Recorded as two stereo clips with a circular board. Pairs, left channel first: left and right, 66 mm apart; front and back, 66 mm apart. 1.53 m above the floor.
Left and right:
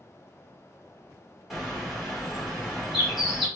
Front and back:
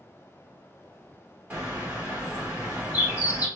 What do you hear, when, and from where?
1.5 s a bird: 175° right, 1.3 m